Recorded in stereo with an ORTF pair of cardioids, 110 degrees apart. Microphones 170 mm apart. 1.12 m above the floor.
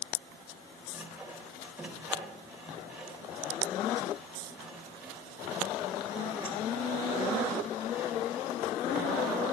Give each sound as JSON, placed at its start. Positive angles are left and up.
{"t": 0.9, "sound": "sawing", "azimuth_deg": -10, "distance_m": 4.5}